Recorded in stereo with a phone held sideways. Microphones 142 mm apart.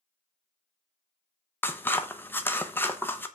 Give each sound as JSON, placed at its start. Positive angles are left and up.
{"t": 1.6, "sound": "scissors", "side_deg": 15, "distance_m": 0.8}